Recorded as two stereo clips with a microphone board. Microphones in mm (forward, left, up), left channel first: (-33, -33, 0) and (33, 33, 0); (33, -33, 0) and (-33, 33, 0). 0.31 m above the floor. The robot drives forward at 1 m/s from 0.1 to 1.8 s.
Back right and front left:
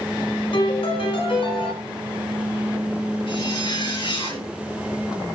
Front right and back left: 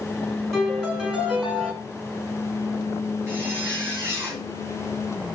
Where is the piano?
140° right, 3 m; by 1.7 s 150° right, 4 m.